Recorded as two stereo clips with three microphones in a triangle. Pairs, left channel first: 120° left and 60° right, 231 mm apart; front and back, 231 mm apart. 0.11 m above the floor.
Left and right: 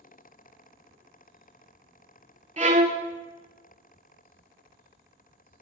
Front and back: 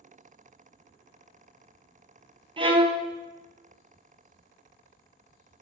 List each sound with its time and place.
2.6 s a violin: 120° right, 0.5 m